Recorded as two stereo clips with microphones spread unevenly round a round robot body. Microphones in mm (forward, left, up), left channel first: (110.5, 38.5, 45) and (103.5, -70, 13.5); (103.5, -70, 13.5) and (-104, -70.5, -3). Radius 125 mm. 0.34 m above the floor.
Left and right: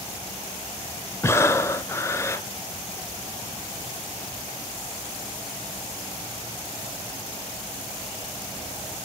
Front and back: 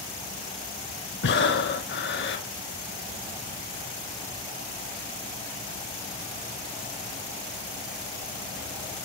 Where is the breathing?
10° left, 0.9 m.